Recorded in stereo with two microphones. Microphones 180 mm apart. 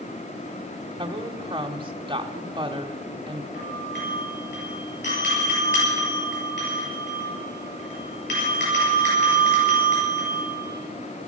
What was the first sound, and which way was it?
A woman speaking, 25° right (ahead or behind).